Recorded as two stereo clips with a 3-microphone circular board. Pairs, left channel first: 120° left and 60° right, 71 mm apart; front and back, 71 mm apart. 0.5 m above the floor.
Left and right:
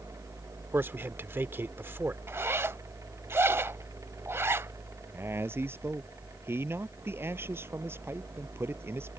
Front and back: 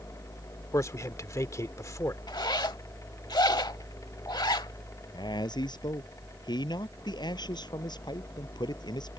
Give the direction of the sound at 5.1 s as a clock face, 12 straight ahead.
12 o'clock.